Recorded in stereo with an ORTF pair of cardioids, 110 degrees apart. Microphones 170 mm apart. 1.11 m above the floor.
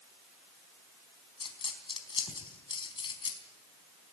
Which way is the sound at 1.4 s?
30° left.